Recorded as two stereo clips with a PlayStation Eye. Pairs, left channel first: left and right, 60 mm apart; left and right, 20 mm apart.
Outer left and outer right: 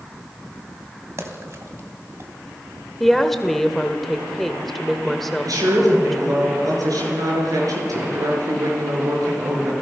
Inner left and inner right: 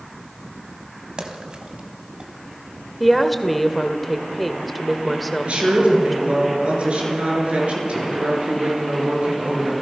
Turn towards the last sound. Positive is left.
turn(degrees=-75)  # may be behind; listen again after turning